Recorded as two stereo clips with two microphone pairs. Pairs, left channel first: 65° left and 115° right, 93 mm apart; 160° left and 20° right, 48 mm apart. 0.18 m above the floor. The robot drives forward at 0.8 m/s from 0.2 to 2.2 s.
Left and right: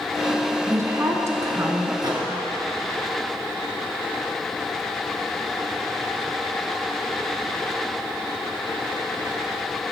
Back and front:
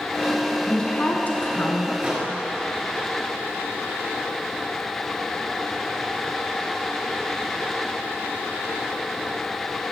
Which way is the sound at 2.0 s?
80° right.